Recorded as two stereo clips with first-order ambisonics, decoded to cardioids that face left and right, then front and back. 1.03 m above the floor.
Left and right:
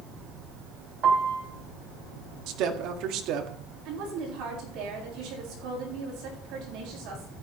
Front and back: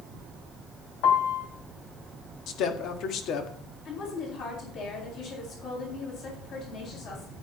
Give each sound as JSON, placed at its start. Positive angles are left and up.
{"t": 1.0, "sound": "a piano", "azimuth_deg": -30, "distance_m": 2.5}
{"t": 2.5, "sound": "a woman speaking", "azimuth_deg": -50, "distance_m": 1.7}
{"t": 3.9, "sound": "a woman speaking", "azimuth_deg": -50, "distance_m": 8.5}